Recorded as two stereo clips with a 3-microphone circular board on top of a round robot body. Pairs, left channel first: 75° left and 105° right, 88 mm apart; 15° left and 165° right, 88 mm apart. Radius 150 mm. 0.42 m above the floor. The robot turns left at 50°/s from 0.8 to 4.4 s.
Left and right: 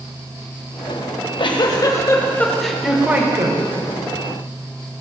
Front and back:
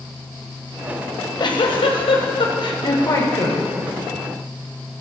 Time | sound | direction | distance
1.1 | a giggle | 65° left | 1.7 m